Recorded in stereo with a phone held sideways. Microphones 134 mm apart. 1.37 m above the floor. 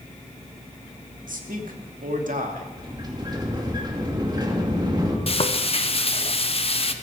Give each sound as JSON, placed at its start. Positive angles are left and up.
{"t": 1.3, "sound": "a man speaking", "side_deg": -85, "distance_m": 2.5}
{"t": 2.8, "sound": "a sliding door", "side_deg": -30, "distance_m": 2.5}
{"t": 5.3, "sound": "frying", "side_deg": 45, "distance_m": 1.0}